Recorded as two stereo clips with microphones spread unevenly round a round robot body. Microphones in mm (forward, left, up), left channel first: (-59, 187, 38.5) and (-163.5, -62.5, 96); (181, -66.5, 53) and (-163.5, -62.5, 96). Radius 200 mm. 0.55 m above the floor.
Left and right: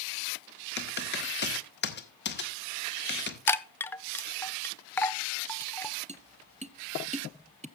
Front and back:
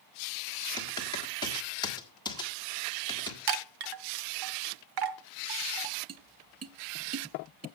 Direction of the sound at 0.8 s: 70° left.